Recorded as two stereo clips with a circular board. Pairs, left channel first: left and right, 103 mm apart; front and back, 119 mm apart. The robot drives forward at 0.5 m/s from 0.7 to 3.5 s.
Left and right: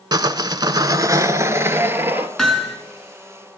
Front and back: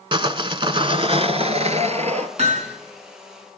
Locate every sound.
0.1 s sawing: 135° right, 0.7 m; by 2.3 s 160° right, 1.4 m
2.4 s hammering: 175° left, 3.5 m